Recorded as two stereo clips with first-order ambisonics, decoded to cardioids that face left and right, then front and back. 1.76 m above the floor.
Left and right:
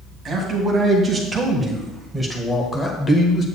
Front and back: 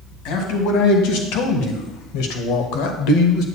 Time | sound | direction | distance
0.2 | a man speaking | 20° right | 2 m